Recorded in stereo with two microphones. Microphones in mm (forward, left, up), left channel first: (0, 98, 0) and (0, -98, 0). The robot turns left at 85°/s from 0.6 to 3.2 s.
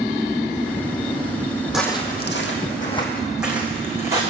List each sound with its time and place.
1.7 s footsteps: 5° right (ahead or behind), 1.4 m; by 4.2 s 15° right (ahead or behind), 2.5 m